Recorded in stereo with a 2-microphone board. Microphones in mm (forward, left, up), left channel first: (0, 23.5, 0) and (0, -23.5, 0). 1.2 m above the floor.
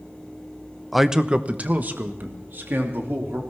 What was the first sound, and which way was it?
A man speaking, centre (ahead or behind).